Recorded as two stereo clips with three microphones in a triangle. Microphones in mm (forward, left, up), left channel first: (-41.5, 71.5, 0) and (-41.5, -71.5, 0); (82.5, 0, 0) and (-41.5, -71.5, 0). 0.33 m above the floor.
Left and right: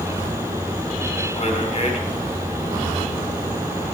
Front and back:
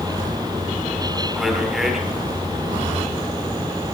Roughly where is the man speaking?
Behind left.